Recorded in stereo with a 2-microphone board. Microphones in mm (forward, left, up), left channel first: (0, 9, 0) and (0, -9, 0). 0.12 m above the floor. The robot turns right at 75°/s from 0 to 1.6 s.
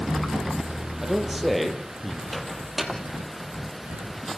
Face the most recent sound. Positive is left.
turn(degrees=-15)  # may be behind; listen again after turning